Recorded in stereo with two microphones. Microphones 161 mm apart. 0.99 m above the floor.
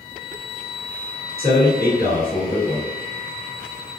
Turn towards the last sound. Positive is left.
turn(degrees=-75)  # may be behind; listen again after turning